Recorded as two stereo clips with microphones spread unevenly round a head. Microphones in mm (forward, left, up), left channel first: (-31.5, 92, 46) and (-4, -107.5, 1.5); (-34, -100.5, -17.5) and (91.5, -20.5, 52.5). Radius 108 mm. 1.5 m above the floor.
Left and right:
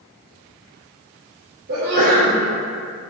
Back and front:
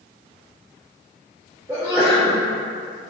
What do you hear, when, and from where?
1.7 s a sneeze: 40° right, 1.7 m